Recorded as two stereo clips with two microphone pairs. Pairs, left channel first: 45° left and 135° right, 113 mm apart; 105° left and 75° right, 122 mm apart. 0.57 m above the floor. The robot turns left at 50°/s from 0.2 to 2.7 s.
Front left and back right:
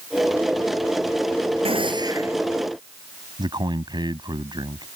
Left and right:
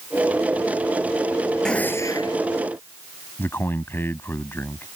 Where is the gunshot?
170° right; by 2.4 s 155° left.